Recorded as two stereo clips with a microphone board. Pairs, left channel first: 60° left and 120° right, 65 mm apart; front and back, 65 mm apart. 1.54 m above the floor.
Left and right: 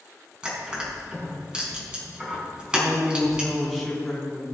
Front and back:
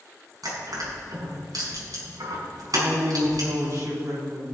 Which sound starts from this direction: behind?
Crushing, at 0.4 s.